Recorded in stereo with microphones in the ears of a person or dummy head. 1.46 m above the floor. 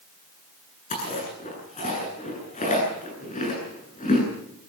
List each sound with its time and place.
0.9 s chewing: 30° left (ahead or behind), 9.5 m